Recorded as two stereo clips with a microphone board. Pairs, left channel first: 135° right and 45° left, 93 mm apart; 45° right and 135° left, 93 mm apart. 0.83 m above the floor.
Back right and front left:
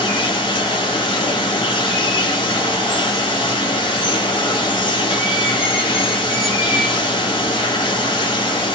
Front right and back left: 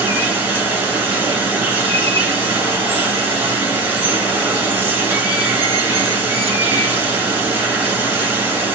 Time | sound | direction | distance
0.0 | running water | 160° right | 2 m